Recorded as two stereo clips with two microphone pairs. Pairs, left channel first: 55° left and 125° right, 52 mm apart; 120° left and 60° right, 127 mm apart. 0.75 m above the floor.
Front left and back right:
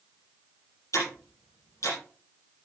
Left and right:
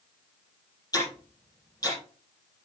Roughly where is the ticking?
Ahead left.